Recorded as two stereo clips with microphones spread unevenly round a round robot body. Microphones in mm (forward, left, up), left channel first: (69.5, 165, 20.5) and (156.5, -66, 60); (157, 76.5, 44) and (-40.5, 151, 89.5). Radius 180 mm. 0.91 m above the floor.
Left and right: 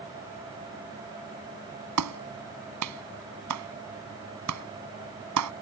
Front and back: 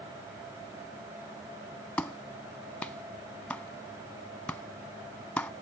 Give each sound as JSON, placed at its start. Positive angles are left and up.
{"t": 2.0, "sound": "a clap", "azimuth_deg": -105}